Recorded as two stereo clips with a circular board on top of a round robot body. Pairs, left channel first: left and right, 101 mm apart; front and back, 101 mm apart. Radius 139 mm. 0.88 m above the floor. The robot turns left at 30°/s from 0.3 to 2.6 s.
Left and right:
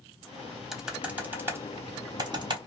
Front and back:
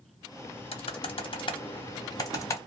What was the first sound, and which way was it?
Typing on a keyboard, straight ahead.